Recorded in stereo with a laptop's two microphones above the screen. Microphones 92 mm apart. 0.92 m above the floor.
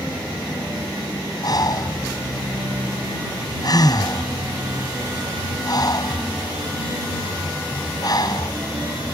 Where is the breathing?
45° left (ahead or behind).